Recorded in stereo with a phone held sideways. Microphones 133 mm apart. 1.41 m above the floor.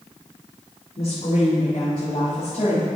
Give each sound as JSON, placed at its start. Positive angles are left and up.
{"t": 1.0, "sound": "a woman speaking", "side_deg": 50, "distance_m": 2.0}